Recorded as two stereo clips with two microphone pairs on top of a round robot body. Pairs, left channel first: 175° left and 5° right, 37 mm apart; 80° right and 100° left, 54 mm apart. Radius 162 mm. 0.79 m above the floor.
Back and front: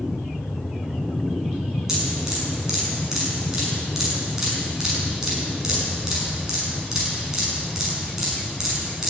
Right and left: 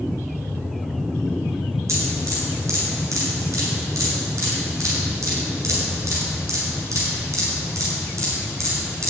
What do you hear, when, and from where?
1.9 s dripping: 70° left, 6 m